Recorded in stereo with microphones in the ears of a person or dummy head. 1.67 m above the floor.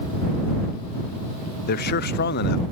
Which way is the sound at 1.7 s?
60° left (ahead or behind).